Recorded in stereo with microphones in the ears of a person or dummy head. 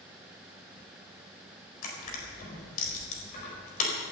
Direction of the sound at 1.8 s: 45° left (ahead or behind).